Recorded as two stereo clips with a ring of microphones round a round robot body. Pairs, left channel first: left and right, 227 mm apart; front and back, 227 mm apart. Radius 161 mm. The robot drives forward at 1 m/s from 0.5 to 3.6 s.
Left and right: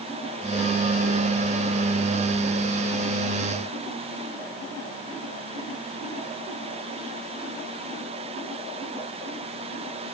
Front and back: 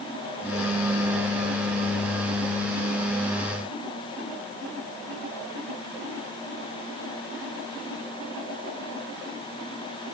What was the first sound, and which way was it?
Only background noise.